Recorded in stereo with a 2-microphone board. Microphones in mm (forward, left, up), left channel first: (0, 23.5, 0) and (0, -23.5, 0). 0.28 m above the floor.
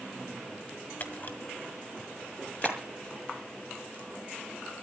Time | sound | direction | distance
1.0 | a camera shutter | 40° left (ahead or behind) | 2 m
2.6 | a clap | 15° right (ahead or behind) | 5 m